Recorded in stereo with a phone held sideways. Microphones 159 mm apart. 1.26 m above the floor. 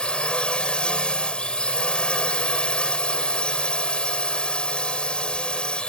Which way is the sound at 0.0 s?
5° left (ahead or behind).